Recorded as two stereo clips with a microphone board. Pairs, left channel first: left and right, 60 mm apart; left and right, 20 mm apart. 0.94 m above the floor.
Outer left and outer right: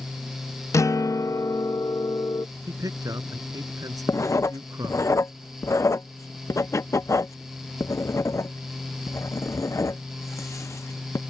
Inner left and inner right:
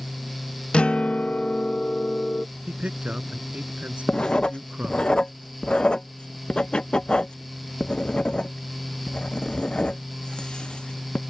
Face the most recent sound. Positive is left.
turn(degrees=60)  # may be behind; listen again after turning